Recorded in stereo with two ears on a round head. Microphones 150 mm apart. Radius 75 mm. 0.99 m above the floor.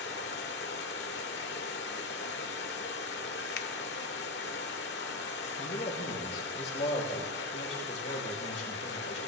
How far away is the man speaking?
About 3.5 m.